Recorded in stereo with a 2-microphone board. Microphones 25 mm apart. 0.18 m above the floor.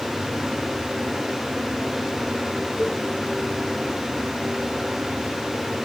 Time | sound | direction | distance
2.8 | a cowbell | 50° left (ahead or behind) | ?